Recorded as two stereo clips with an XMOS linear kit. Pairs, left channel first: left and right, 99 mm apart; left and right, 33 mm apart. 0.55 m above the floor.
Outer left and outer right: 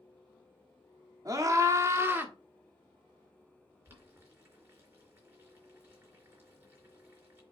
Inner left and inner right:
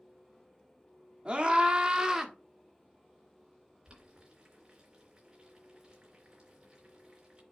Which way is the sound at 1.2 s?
35° right (ahead or behind).